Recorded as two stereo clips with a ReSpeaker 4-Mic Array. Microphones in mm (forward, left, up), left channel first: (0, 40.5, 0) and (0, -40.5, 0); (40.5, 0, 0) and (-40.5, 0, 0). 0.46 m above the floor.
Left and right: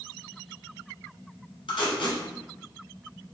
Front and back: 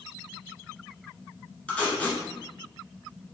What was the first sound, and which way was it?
Tape being pulled, 75° left.